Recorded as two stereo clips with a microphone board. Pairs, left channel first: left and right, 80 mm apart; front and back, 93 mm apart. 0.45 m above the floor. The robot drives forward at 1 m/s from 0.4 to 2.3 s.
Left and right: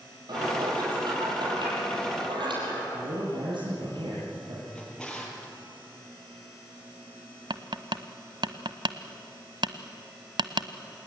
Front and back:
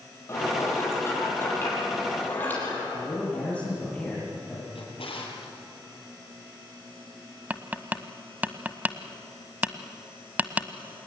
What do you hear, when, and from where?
0.3 s dishes clattering: 60° right, 9 m; by 2.8 s 70° right, 8 m
2.9 s a man speaking: 75° right, 9.5 m
4.8 s a drawer: 10° left, 6 m
7.5 s tapping: 110° right, 1.2 m